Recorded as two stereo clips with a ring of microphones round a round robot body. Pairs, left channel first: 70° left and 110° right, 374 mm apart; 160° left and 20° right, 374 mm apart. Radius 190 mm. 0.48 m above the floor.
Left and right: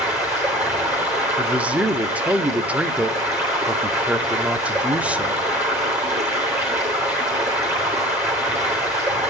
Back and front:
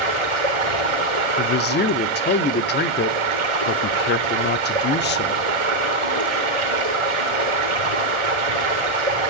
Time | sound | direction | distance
0.0 | running water | 25° right | 4 m
1.4 | a man speaking | 165° left | 0.8 m